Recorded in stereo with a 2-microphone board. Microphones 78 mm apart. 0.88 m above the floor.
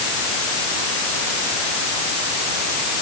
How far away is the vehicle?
No vehicle in this recording.